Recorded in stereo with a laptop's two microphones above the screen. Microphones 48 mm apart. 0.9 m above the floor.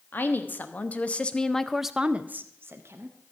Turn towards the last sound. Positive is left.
turn(degrees=-65)  # may be behind; listen again after turning